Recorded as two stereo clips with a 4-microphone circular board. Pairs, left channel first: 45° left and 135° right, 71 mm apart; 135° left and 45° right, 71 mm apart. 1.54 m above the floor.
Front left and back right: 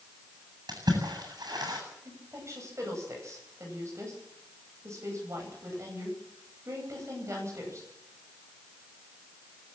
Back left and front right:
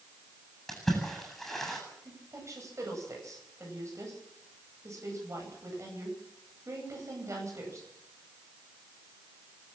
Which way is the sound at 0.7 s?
140° right.